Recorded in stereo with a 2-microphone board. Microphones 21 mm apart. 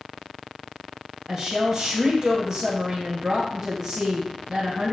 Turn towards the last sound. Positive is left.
turn(degrees=-25)  # may be behind; listen again after turning